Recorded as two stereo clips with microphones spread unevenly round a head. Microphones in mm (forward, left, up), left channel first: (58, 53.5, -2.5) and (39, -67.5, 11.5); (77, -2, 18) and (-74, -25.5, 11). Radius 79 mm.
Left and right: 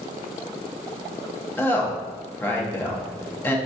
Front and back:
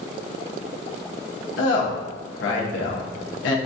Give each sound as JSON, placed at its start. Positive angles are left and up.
{"t": 1.6, "sound": "a woman speaking", "azimuth_deg": 5, "distance_m": 0.9}